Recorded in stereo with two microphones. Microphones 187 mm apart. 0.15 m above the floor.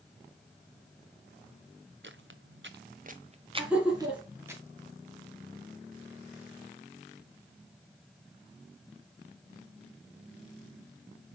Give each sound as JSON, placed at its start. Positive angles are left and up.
{"t": 2.0, "sound": "footsteps", "side_deg": -65, "distance_m": 0.8}
{"t": 3.6, "sound": "laughter", "side_deg": -5, "distance_m": 1.4}